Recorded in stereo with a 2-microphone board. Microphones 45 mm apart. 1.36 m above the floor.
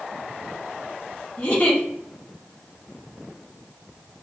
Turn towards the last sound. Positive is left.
turn(degrees=35)  # may be behind; listen again after turning